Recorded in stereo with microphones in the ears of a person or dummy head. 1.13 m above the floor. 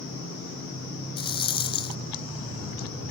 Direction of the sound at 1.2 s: 25° left (ahead or behind).